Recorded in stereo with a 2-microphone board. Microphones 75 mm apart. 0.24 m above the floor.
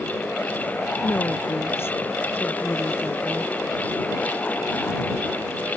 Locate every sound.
1.0 s a woman speaking: 35° left (ahead or behind)